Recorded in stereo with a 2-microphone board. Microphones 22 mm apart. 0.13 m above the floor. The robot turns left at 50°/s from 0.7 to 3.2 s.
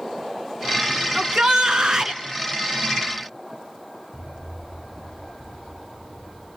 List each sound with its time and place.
1.1 s a shout: 60° right, 1.9 m; by 2.2 s 110° right, 1.9 m
4.1 s an explosion: 15° right (ahead or behind), 7 m